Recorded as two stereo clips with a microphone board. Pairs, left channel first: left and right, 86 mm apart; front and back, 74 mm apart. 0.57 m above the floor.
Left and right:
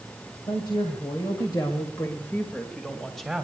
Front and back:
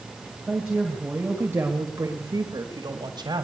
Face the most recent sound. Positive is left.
turn(degrees=-175)